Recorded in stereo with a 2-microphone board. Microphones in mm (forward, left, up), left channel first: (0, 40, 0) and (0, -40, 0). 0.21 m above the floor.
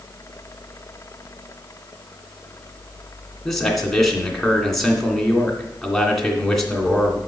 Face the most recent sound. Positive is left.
turn(degrees=5)  # may be behind; listen again after turning